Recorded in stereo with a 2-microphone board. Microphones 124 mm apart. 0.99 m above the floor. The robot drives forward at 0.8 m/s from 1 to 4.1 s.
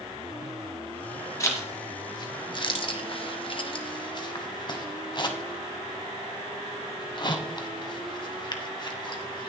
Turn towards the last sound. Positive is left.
turn(degrees=40)  # may be behind; listen again after turning